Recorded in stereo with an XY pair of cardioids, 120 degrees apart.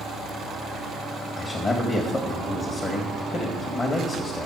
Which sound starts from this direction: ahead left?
A man speaking, at 1.4 s.